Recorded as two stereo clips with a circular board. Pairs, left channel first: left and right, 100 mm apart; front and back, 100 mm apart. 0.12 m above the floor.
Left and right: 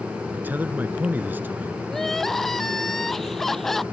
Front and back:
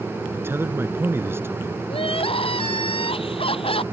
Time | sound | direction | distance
0.3 | a man speaking | 140° right | ?
1.9 | crying | straight ahead | ?